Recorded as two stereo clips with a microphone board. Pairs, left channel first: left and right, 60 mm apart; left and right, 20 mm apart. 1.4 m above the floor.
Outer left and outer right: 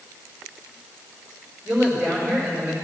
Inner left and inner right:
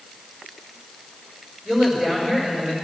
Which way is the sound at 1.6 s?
20° right (ahead or behind).